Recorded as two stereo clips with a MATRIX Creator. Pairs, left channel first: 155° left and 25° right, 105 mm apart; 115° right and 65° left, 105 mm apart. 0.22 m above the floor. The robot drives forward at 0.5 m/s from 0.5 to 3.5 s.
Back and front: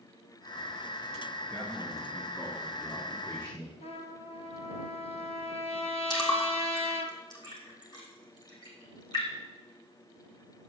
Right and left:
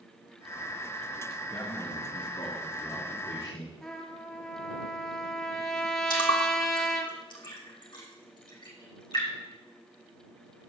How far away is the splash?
About 3.5 m.